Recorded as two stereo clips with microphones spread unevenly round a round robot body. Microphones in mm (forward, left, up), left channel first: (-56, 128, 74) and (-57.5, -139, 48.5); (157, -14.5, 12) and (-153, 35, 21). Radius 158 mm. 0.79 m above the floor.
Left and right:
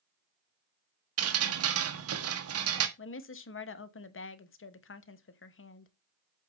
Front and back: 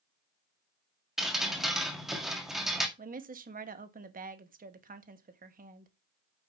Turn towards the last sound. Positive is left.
turn(degrees=115)